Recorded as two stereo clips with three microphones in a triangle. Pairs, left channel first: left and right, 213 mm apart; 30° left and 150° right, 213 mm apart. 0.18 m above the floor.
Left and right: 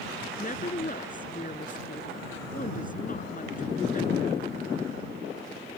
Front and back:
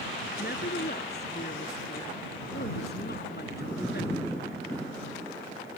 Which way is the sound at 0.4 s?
50° left.